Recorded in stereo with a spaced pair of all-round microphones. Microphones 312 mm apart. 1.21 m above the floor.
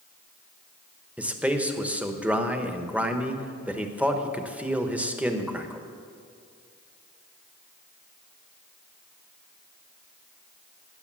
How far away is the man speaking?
About 1.0 m.